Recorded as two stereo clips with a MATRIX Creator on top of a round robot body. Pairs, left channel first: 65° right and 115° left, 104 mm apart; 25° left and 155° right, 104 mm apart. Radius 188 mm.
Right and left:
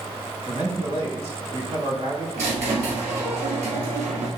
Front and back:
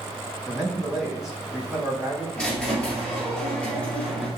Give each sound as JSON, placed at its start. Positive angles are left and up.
{"t": 0.5, "sound": "a man speaking", "azimuth_deg": 115, "distance_m": 3.0}
{"t": 2.4, "sound": "a squeak", "azimuth_deg": 100, "distance_m": 2.0}